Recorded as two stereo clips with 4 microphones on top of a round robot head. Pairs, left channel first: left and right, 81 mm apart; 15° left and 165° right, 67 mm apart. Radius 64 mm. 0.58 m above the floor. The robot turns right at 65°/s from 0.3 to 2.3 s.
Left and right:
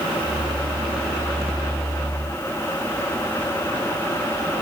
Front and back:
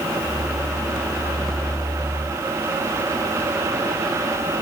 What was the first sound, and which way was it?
Only background noise.